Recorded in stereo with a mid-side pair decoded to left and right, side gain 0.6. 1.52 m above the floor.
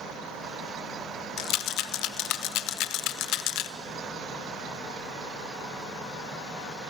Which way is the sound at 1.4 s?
65° left.